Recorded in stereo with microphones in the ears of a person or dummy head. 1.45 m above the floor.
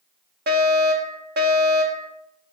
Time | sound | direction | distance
0.5 | a fire alarm | 50° right (ahead or behind) | 1.4 m